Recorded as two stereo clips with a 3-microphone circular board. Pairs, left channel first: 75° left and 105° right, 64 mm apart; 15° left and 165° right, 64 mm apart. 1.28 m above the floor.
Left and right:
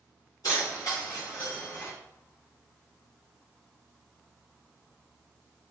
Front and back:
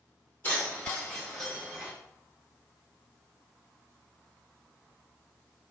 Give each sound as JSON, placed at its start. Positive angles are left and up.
{"t": 0.4, "sound": "keys jangling", "azimuth_deg": 75, "distance_m": 1.6}